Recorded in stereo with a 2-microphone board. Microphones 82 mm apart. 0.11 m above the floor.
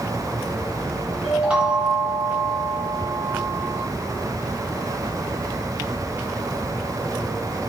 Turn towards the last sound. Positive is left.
turn(degrees=-10)  # may be behind; listen again after turning